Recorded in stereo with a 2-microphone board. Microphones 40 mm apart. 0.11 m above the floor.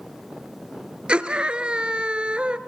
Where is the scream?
30° right (ahead or behind), 1.4 m.